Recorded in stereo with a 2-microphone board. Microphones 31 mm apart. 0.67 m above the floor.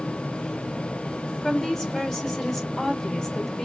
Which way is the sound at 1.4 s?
20° left (ahead or behind).